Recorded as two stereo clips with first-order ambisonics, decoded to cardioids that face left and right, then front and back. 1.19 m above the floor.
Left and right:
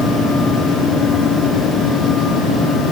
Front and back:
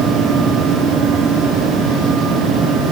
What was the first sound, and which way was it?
Only background noise.